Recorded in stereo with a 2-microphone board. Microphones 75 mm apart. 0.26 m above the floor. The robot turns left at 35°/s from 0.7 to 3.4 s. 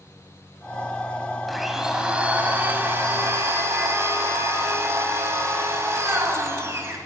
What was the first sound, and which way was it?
A blender, straight ahead.